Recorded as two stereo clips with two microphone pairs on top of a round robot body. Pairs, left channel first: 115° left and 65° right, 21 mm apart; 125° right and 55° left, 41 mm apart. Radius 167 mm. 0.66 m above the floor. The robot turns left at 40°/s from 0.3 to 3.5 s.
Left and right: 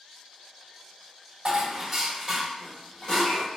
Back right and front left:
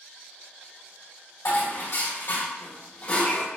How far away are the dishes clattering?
About 2 m.